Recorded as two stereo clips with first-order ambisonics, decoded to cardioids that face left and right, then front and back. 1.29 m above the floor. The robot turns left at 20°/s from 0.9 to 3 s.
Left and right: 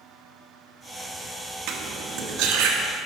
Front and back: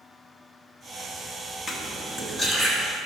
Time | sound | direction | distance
1.7 | cutlery clinking | 65° right | 1.0 m